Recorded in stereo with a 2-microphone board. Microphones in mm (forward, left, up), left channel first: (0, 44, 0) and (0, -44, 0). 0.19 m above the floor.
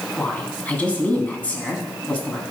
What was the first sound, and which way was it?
A woman speaking, 15° left (ahead or behind).